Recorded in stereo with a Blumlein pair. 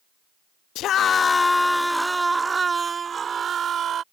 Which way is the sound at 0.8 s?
35° left.